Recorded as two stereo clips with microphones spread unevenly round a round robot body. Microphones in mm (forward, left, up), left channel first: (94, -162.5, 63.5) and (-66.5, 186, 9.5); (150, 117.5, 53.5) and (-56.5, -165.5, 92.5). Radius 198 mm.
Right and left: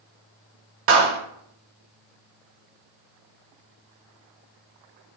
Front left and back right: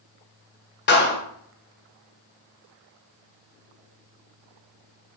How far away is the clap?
About 0.9 m.